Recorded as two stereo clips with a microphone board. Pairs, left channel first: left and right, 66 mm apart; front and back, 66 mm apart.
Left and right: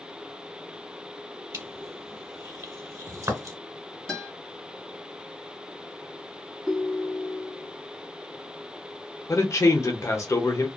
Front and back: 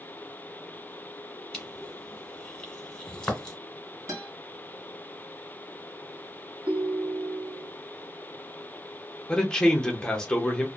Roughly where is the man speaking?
Left.